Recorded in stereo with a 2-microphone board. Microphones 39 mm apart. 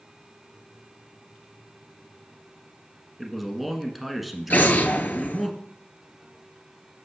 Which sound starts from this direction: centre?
A man speaking, at 3.2 s.